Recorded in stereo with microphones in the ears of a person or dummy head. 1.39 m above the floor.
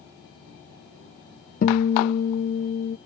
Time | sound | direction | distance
1.6 | a guitar | 45° left (ahead or behind) | ?